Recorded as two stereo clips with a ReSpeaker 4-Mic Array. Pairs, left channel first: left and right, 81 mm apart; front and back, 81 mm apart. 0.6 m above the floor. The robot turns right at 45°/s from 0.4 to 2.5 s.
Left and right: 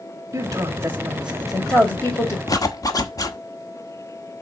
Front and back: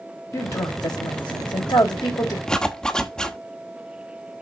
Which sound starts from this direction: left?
A zipper, at 2.5 s.